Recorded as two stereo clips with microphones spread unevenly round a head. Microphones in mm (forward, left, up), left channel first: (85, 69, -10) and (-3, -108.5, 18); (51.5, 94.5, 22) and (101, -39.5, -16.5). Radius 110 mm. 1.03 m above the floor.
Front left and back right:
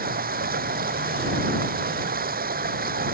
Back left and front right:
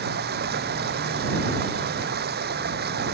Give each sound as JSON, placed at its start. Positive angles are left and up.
{"t": 0.0, "sound": "running water", "azimuth_deg": -70}